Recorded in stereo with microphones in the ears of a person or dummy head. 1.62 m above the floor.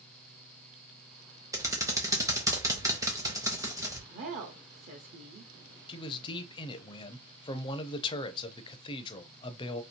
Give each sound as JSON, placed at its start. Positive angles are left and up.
{"t": 1.5, "sound": "typing on a keyboard", "side_deg": -20, "distance_m": 0.8}
{"t": 4.1, "sound": "a woman speaking", "side_deg": -45, "distance_m": 1.0}
{"t": 5.9, "sound": "a man speaking", "side_deg": 25, "distance_m": 0.6}